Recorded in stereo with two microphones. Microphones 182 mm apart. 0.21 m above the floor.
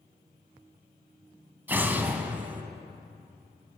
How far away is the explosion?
About 0.8 m.